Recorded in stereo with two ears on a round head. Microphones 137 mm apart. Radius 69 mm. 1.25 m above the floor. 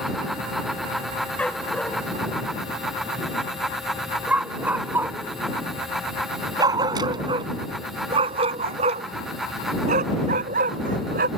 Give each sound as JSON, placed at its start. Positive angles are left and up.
{"t": 1.4, "sound": "a dog barking", "side_deg": 10}